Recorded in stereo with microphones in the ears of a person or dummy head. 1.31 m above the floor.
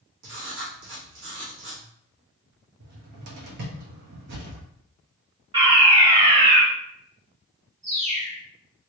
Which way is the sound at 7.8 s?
40° right (ahead or behind).